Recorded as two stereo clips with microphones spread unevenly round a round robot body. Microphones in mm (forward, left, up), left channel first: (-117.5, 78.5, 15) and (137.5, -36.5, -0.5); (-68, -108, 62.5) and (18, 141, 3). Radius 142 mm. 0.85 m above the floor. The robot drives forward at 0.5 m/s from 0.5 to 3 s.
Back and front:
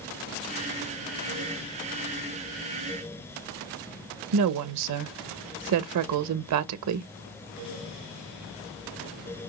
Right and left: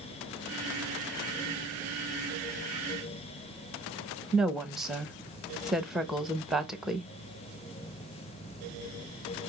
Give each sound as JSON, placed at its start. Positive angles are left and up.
{"t": 4.3, "sound": "a woman speaking", "azimuth_deg": -10, "distance_m": 0.5}